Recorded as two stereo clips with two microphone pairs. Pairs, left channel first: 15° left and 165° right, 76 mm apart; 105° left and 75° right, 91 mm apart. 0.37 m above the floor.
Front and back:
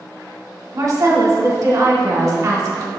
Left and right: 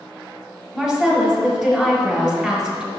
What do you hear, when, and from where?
0.7 s a woman speaking: 175° right, 1.3 m